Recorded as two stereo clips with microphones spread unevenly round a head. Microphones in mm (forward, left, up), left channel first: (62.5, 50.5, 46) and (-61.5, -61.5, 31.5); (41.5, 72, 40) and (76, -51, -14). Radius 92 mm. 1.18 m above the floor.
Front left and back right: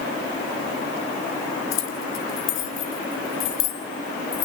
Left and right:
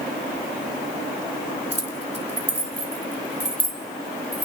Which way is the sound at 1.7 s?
30° left.